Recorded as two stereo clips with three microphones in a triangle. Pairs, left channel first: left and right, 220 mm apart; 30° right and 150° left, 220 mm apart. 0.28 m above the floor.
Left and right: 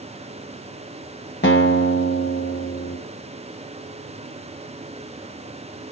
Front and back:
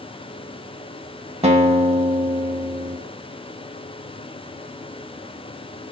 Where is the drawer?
No drawer in this recording.